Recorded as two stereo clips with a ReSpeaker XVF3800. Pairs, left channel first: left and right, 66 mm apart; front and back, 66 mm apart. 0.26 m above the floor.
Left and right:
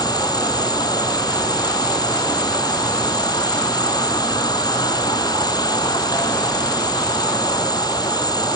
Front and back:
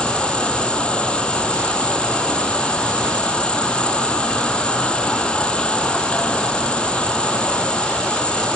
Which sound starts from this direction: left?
An insect, at 0.0 s.